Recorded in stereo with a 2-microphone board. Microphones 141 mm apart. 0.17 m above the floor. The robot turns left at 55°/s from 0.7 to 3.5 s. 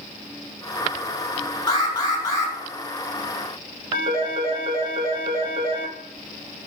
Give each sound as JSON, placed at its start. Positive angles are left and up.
{"t": 1.7, "sound": "an alarm", "azimuth_deg": 95, "distance_m": 0.9}
{"t": 3.9, "sound": "a phone ringing", "side_deg": -40, "distance_m": 1.1}